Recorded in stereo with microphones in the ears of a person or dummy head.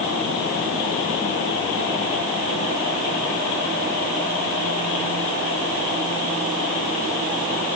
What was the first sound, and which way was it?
Only background noise.